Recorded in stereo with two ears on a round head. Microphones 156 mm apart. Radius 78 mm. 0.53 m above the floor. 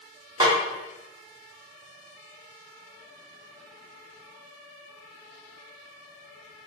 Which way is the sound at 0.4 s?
20° right (ahead or behind).